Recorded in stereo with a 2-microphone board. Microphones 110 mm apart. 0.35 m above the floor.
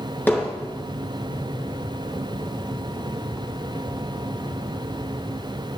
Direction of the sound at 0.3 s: 20° left (ahead or behind).